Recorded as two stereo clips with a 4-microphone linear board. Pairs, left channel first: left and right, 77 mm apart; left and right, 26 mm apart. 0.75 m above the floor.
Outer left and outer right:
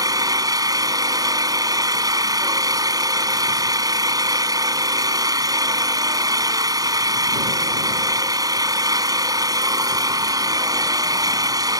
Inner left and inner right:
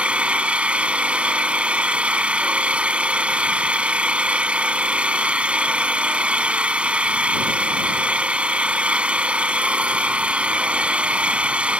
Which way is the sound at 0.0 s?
60° right (ahead or behind).